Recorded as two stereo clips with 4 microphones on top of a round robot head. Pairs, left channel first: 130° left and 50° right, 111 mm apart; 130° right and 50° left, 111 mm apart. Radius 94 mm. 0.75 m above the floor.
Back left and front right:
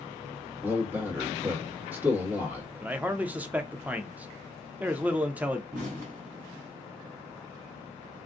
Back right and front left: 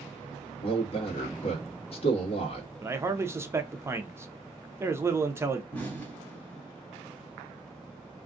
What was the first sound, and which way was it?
A man speaking, 120° right.